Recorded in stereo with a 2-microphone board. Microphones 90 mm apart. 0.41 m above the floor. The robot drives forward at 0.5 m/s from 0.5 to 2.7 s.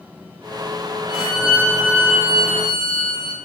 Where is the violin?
Centre (ahead or behind), 5 m.